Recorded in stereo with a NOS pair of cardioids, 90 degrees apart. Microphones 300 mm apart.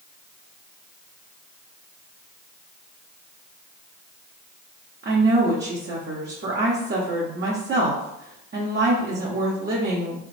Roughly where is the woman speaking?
Ahead right.